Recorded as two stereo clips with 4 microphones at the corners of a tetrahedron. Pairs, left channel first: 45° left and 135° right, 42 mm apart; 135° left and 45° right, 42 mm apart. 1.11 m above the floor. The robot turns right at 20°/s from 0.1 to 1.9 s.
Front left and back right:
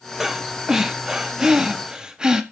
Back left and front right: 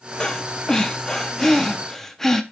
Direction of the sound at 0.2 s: 165° left.